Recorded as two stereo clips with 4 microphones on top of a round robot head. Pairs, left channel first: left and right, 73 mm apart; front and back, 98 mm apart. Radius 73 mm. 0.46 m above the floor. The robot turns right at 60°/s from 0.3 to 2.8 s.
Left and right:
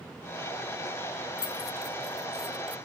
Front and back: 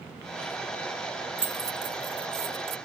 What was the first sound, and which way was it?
Keys jangling, 115° left.